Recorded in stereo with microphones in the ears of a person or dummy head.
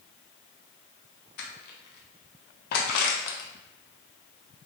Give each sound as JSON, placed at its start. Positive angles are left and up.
{"t": 1.4, "sound": "crushing", "side_deg": 60, "distance_m": 0.6}